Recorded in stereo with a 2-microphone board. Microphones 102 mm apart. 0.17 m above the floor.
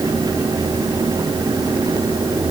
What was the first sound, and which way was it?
Only background noise.